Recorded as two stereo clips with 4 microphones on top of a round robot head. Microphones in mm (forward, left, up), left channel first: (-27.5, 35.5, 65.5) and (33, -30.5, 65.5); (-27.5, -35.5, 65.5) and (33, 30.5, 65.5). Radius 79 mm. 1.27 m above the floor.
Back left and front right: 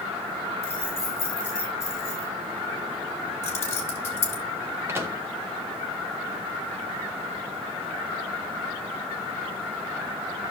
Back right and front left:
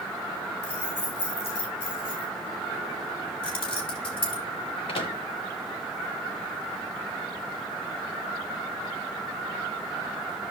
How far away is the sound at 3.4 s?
About 3 m.